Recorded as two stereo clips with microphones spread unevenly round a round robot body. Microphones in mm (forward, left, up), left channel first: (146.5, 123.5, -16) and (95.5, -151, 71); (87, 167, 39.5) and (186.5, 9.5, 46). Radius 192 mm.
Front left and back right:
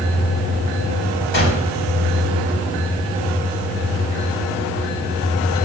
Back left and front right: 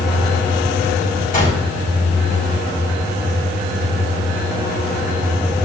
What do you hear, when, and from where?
1.3 s a gunshot: 80° left, 4 m